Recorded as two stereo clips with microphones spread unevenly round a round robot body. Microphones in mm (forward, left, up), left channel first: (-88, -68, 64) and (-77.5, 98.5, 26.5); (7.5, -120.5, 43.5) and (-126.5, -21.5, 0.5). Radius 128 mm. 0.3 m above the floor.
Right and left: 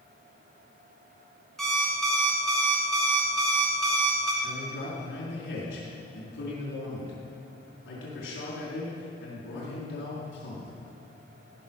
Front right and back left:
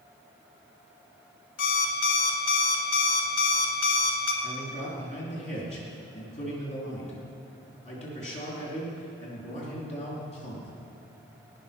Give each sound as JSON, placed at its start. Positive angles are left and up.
{"t": 1.6, "sound": "an alarm clock", "azimuth_deg": 0, "distance_m": 1.0}
{"t": 4.4, "sound": "a man speaking", "azimuth_deg": -85, "distance_m": 5.0}